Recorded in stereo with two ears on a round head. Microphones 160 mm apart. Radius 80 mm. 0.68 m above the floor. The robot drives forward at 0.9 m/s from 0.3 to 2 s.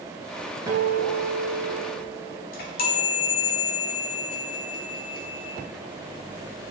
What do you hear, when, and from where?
0.7 s a guitar: 20° right (ahead or behind), 1.7 m; by 2.4 s 45° right (ahead or behind), 0.8 m
2.5 s a chime: 50° left (ahead or behind), 1.7 m